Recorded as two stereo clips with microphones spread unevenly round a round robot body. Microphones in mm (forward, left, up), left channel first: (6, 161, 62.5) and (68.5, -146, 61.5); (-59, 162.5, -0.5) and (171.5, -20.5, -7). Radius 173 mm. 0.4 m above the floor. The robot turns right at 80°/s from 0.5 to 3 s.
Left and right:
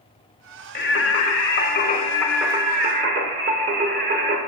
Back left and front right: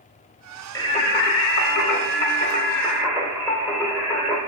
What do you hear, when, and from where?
0.8 s singing: 65° left, 0.8 m; by 4.4 s 115° right, 0.8 m